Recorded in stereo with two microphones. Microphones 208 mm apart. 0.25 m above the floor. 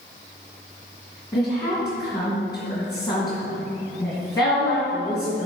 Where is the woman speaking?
20° left (ahead or behind), 2.5 m.